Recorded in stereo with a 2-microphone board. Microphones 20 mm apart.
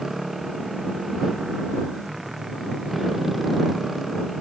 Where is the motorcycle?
10° right (ahead or behind); by 4.4 s 5° right (ahead or behind).